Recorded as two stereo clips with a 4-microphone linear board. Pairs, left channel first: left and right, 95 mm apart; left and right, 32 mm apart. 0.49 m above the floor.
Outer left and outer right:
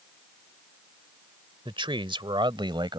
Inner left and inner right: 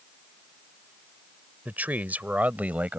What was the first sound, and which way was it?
A man speaking, 60° right (ahead or behind).